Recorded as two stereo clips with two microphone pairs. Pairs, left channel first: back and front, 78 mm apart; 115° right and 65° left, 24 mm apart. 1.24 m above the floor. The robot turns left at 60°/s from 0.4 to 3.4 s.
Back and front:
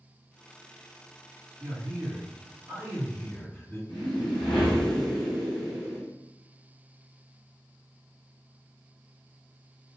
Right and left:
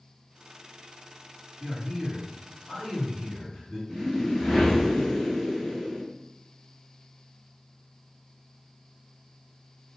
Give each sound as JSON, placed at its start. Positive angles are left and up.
{"t": 1.6, "sound": "a man speaking", "azimuth_deg": 0, "distance_m": 1.9}
{"t": 3.9, "sound": "a whoosh", "azimuth_deg": 180, "distance_m": 1.0}